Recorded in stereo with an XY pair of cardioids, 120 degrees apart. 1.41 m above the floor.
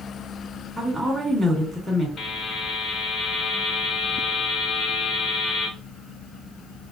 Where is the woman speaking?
5° right, 2 m.